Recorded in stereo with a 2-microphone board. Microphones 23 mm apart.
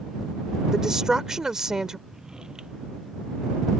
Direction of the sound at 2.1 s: 35° right (ahead or behind).